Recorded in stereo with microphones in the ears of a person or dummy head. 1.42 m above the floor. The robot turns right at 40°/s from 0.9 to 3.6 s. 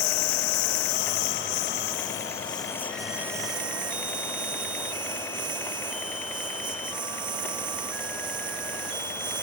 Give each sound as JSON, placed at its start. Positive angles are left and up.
{"t": 0.0, "sound": "a lawn mower", "azimuth_deg": 90}